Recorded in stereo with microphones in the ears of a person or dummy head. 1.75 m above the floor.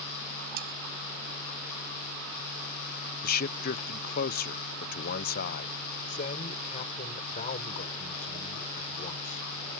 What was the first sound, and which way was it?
Sawing, 55° right (ahead or behind).